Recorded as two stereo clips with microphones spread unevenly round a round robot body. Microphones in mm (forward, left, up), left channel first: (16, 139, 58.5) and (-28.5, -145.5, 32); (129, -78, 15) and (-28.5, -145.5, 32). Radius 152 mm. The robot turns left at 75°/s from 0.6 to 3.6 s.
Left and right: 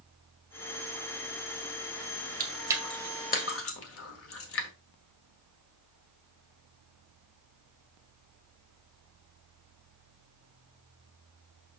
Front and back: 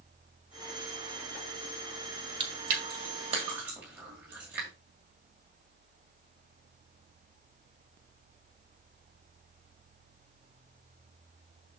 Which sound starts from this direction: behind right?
Chewing, at 2.4 s.